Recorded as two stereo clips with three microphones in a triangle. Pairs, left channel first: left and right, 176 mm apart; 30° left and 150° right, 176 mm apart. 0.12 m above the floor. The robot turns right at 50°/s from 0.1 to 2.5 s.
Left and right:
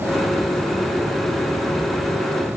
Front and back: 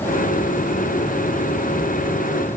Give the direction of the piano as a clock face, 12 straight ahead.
I don't hear a piano.